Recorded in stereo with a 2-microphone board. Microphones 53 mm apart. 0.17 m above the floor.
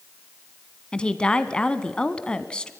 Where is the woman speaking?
20° left (ahead or behind), 1.2 m.